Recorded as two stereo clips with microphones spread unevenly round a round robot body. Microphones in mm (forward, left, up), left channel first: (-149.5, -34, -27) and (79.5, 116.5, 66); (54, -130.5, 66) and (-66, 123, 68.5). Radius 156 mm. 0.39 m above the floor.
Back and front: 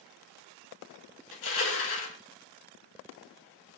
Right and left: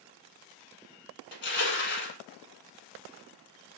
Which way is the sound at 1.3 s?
120° right.